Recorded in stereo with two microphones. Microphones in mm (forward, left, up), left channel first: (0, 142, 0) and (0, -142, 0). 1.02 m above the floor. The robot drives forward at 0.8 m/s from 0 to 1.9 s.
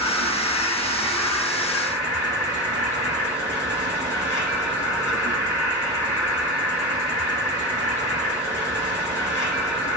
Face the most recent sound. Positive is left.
turn(degrees=10)  # may be behind; listen again after turning